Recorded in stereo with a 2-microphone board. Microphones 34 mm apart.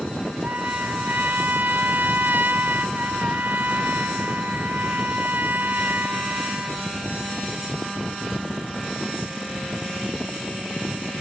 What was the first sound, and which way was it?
A trumpet, 75° right (ahead or behind).